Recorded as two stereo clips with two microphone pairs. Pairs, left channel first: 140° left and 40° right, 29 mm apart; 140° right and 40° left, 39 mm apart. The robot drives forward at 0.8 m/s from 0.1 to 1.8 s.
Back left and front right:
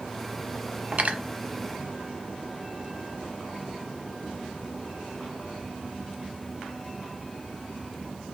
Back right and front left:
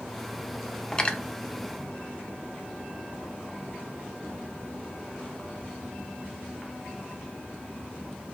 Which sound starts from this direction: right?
Cutlery clinking, at 0.9 s.